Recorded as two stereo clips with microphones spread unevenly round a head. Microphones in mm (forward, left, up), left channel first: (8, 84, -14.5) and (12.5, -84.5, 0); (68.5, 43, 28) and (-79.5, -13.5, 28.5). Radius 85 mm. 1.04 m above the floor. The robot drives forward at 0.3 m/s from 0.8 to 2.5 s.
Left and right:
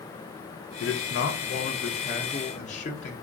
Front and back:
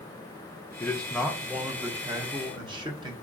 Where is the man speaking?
95° left, 0.6 m; by 3.1 s 140° left, 0.8 m.